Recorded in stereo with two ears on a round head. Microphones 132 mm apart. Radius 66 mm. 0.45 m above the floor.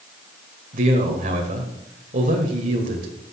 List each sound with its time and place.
0.7 s a man speaking: 55° right (ahead or behind), 2.5 m